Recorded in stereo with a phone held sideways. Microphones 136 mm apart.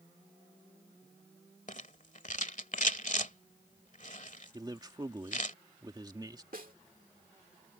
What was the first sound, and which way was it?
A rattle, 60° left (ahead or behind).